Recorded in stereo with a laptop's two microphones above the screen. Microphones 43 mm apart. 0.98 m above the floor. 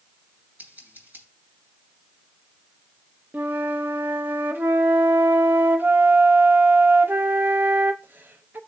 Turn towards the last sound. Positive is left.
turn(degrees=-55)  # may be behind; listen again after turning